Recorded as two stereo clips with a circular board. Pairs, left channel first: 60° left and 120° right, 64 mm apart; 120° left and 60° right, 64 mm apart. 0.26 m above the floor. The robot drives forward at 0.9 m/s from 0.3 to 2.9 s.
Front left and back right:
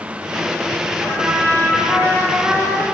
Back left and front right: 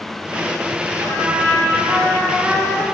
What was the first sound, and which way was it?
A trumpet, 70° right.